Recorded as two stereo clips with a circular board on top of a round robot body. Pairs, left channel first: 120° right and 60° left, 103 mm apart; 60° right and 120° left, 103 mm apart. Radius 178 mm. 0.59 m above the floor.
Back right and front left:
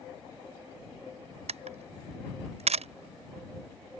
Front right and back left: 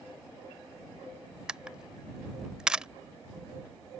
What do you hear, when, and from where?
1.5 s a camera shutter: 35° left